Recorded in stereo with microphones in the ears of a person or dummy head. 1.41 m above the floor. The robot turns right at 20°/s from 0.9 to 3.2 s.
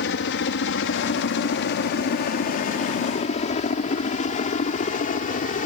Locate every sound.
0.0 s a helicopter: 60° left (ahead or behind); by 5.7 s 45° left (ahead or behind)